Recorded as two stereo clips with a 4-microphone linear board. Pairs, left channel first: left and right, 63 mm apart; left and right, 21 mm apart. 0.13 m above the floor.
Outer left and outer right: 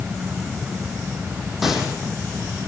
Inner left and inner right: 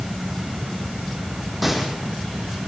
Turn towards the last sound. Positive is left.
turn(degrees=-5)  # may be behind; listen again after turning